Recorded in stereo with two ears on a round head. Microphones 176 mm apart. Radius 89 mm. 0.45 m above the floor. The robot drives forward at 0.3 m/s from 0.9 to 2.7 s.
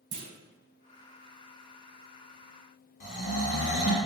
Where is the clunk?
65° right (ahead or behind), 1.0 m.